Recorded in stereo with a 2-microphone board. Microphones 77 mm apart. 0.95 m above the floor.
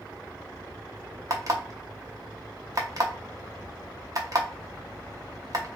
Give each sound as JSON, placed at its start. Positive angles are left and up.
{"t": 1.3, "sound": "an alarm clock", "side_deg": -45, "distance_m": 0.9}